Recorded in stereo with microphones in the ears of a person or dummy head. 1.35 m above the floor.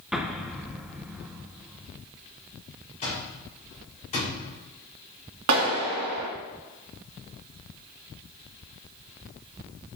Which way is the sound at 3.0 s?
40° left (ahead or behind).